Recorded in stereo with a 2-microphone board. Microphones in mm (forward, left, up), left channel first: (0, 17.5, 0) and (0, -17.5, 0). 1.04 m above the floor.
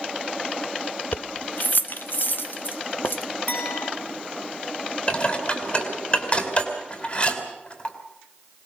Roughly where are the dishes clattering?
Left.